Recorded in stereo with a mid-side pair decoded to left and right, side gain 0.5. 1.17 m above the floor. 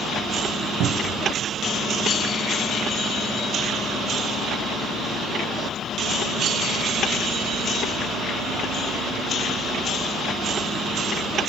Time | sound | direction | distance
0.8 | a cupboard door | 70° right | 0.6 m